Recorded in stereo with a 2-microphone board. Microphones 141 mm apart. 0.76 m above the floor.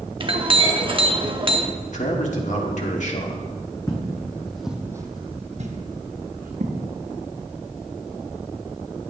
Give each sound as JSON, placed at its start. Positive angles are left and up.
{"t": 0.2, "sound": "a clink", "side_deg": -40, "distance_m": 1.0}
{"t": 1.9, "sound": "a man speaking", "side_deg": 60, "distance_m": 1.9}
{"t": 3.9, "sound": "footsteps", "side_deg": 25, "distance_m": 2.0}